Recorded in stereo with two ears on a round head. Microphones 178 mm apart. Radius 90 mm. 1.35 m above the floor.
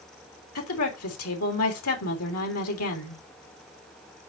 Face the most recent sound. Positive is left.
turn(degrees=85)